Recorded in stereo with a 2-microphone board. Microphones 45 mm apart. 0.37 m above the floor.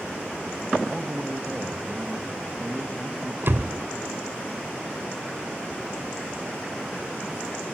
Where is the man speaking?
15° right (ahead or behind), 2.5 m.